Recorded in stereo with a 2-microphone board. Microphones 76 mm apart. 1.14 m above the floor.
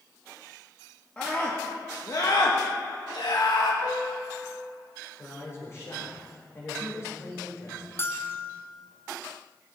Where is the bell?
30° left (ahead or behind), 0.7 m.